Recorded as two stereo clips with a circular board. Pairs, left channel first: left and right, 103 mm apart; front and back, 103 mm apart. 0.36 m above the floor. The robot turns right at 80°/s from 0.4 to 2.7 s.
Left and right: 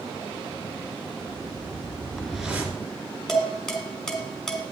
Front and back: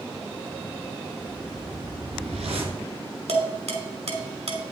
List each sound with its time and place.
1.2 s a whoosh: 90° left, 2.0 m; by 2.8 s 155° right, 2.0 m
3.3 s dishes clattering: 175° left, 2.0 m